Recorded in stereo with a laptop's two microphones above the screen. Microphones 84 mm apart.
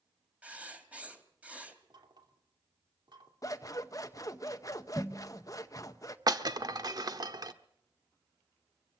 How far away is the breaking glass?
About 1.1 m.